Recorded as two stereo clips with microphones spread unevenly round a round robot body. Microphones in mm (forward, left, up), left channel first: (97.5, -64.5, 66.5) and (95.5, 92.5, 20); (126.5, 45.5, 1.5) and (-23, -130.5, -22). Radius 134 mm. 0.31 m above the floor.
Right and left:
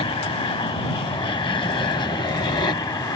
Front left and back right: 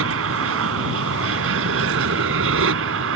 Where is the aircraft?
160° right; by 3.2 s 165° right.